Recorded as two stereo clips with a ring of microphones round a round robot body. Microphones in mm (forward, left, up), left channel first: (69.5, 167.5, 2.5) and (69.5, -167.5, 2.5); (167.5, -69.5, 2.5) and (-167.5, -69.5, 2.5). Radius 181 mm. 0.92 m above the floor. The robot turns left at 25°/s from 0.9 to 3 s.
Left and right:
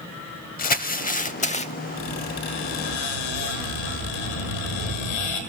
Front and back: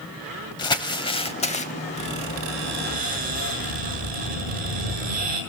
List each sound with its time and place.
0.6 s crumpling: 65° left, 0.7 m; by 1.7 s 40° left, 0.7 m
2.0 s a squeak: 135° left, 7 m; by 5.4 s 110° left, 7 m